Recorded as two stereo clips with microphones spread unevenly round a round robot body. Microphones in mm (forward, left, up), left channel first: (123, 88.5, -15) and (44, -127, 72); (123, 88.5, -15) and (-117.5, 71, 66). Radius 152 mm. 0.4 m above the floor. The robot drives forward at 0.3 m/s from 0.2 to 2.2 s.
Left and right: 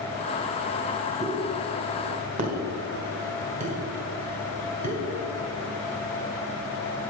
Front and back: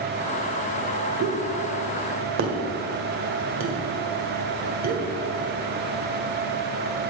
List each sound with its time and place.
1.2 s a pop: 175° left, 1.7 m